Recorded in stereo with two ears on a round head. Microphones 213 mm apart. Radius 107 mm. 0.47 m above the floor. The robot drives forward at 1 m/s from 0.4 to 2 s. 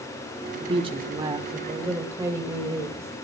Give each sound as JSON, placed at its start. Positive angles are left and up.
{"t": 0.6, "sound": "a woman speaking", "side_deg": -25, "distance_m": 1.1}